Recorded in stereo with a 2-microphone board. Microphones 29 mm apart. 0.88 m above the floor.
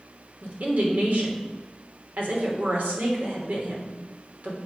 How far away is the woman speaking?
About 3 m.